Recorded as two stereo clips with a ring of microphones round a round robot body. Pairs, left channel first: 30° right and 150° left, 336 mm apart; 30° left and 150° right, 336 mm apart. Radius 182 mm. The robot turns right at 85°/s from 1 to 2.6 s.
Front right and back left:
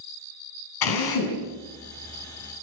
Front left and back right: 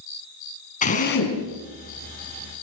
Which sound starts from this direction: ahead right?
A drill, at 0.8 s.